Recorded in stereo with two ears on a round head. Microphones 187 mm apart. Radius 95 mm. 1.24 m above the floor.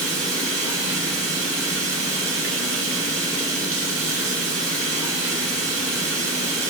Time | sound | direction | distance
0.0 | running water | 65° right (ahead or behind) | 3 m